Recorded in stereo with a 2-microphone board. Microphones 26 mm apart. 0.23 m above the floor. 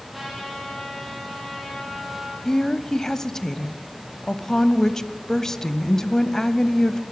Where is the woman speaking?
20° left (ahead or behind), 1.0 m.